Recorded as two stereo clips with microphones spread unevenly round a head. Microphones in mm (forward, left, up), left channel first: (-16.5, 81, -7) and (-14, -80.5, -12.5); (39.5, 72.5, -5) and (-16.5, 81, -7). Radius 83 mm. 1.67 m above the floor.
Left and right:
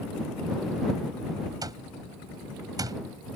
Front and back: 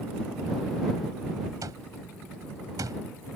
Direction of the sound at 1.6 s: 155° right.